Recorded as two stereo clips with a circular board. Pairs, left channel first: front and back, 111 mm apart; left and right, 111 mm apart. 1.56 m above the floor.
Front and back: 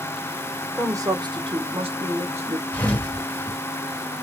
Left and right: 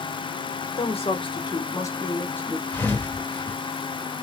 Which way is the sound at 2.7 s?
50° left.